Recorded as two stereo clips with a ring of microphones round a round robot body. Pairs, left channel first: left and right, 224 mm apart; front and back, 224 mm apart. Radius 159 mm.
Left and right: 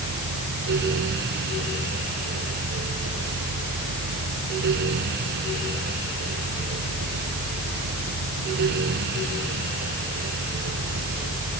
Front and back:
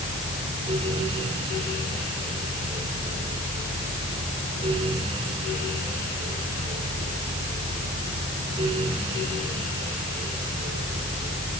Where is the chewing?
I don't hear chewing.